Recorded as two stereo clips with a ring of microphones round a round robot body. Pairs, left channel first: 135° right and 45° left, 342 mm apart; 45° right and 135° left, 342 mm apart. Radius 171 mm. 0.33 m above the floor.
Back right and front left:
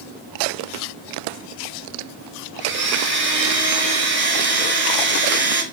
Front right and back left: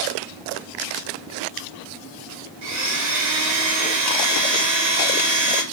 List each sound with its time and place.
2.6 s a blender: 100° left, 1.1 m